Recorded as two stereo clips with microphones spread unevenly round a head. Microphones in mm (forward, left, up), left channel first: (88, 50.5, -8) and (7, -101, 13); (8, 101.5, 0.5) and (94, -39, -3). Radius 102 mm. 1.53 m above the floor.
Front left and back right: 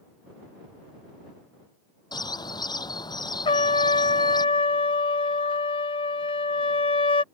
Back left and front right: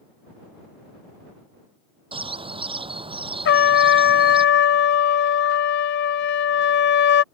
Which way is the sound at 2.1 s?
5° right.